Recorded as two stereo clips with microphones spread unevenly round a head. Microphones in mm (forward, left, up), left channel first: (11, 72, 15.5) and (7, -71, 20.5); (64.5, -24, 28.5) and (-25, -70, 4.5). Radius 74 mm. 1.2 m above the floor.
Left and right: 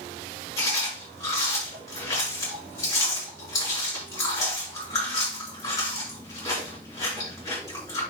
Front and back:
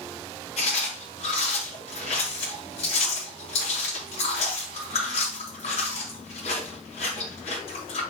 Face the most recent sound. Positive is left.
turn(degrees=20)